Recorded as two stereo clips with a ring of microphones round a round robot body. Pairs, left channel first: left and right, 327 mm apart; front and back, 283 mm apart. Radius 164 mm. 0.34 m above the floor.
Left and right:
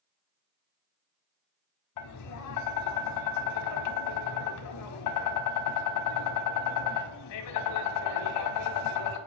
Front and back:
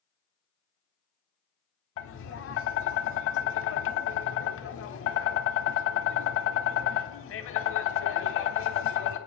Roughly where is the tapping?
Ahead left.